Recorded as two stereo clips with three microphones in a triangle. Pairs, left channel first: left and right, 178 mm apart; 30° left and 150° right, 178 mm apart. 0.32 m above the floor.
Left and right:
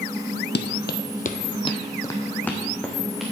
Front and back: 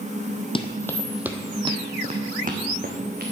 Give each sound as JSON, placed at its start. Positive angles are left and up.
{"t": 0.6, "sound": "running footsteps", "azimuth_deg": 85, "distance_m": 0.7}